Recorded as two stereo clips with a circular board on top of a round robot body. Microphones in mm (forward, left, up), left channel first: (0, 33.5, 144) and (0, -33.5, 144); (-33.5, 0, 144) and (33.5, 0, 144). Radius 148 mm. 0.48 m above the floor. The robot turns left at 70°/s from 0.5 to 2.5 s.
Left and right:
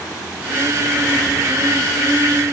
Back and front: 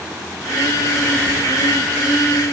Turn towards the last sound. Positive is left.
No sound to turn to.